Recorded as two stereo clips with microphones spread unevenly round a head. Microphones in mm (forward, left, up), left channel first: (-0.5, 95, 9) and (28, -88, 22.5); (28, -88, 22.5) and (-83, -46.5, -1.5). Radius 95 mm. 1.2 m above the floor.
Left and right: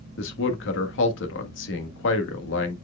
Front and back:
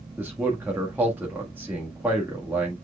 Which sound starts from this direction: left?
A man speaking, at 0.2 s.